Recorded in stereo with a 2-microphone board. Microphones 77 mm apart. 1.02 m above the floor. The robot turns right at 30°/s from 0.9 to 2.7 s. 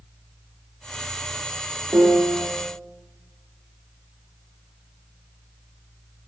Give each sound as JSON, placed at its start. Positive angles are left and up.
{"t": 1.9, "sound": "a piano", "side_deg": -35, "distance_m": 3.0}